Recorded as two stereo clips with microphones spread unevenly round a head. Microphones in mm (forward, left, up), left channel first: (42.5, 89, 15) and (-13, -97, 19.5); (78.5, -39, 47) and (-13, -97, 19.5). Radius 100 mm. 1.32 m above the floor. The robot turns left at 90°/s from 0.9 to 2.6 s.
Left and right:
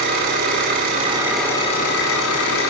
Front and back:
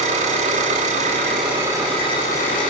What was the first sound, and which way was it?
An engine running, 155° right.